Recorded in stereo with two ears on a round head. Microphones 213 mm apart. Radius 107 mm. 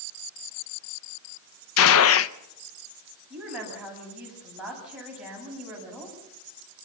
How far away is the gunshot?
About 0.7 m.